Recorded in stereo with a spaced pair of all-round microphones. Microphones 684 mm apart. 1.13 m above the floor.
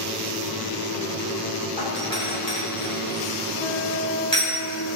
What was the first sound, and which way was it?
A doorbell, 30° right (ahead or behind).